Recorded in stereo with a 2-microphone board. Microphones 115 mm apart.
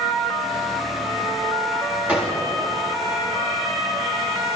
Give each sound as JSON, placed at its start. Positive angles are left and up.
{"t": 2.1, "sound": "a gunshot", "side_deg": -10, "distance_m": 6.5}